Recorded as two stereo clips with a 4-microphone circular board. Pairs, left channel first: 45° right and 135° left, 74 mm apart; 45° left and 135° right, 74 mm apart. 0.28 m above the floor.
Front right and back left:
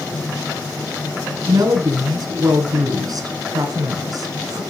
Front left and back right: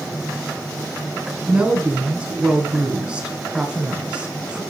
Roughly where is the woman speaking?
Behind left.